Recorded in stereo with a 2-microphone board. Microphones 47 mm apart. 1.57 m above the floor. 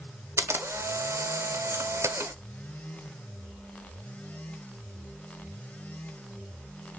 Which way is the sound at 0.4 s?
75° right (ahead or behind).